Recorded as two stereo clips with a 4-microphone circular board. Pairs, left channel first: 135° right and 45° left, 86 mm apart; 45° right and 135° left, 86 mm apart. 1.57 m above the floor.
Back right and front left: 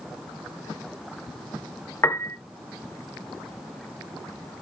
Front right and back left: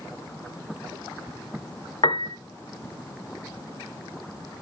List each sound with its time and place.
2.0 s a piano: 75° right, 0.9 m